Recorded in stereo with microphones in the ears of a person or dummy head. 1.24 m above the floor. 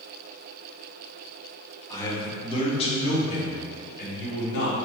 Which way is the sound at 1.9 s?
15° left (ahead or behind).